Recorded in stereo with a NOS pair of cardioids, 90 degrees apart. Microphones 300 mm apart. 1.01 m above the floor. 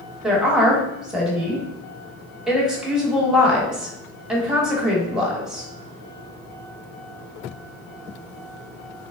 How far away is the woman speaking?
About 1.1 m.